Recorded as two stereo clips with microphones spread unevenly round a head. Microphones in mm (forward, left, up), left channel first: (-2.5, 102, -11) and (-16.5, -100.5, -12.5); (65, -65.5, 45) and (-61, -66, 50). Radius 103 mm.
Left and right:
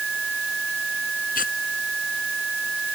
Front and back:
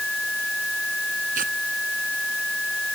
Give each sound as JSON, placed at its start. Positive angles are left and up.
{"t": 1.4, "sound": "tearing paper", "azimuth_deg": 135}